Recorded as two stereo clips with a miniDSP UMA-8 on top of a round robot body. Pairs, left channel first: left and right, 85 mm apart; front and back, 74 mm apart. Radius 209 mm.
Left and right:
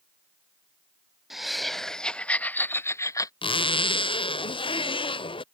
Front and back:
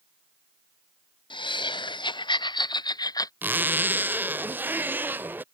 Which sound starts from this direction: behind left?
A zipper, at 3.4 s.